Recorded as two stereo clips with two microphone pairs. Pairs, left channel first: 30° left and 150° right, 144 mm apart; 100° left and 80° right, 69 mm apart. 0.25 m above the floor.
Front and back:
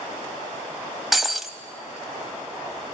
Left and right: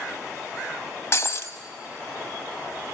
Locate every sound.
1.1 s breaking glass: 120° left, 0.8 m